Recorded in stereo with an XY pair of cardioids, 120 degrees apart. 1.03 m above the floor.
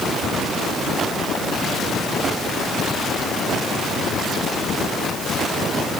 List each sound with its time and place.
Only background noise.